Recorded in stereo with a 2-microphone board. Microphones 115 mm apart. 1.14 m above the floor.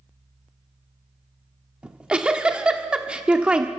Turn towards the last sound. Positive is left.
turn(degrees=-10)  # may be behind; listen again after turning